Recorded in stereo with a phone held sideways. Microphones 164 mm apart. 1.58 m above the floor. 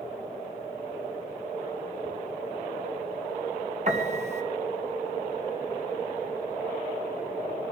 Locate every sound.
3.9 s a piano: 45° right (ahead or behind), 3 m